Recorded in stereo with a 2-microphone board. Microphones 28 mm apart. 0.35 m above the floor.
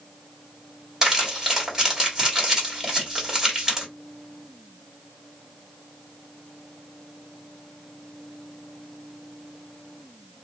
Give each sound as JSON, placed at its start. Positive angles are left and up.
{"t": 1.0, "sound": "crumpling", "side_deg": -20, "distance_m": 1.5}